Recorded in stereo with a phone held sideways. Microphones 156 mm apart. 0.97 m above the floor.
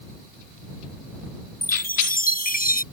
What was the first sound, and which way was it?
A chime, 70° left (ahead or behind).